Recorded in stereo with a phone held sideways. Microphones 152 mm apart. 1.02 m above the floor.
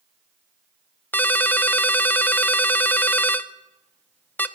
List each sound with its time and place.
1.1 s a ringtone: 10° left (ahead or behind), 0.6 m